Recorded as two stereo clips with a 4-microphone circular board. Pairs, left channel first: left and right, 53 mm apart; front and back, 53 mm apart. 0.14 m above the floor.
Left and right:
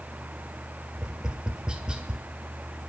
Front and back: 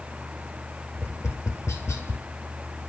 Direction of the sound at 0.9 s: 15° right.